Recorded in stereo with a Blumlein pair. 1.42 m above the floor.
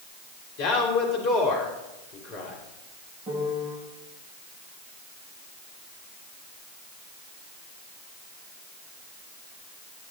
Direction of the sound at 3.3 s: 35° right.